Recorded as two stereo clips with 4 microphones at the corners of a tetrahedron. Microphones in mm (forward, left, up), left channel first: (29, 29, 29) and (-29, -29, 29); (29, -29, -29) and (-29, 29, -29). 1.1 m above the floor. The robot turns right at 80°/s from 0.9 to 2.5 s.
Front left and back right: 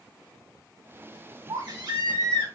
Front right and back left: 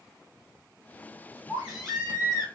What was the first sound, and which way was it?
A baby crying, 165° right.